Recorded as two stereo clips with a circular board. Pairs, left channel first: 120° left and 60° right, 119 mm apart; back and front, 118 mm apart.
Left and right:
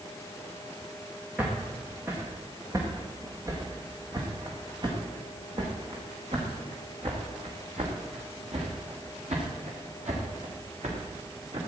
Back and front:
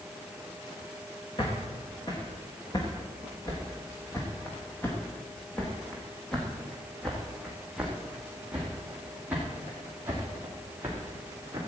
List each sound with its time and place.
1.4 s footsteps: 135° right, 4 m; by 11.6 s 65° right, 5.5 m